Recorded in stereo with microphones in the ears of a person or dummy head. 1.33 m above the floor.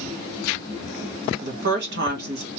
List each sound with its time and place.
1.4 s a woman speaking: 50° right (ahead or behind), 1.5 m